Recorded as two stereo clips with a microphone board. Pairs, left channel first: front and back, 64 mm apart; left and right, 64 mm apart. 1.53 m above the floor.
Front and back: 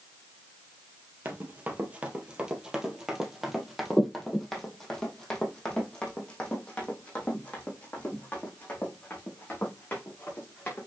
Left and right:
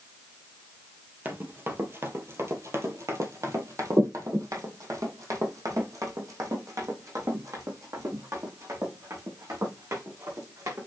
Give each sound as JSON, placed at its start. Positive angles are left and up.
{"t": 1.2, "sound": "running footsteps", "azimuth_deg": -135, "distance_m": 2.0}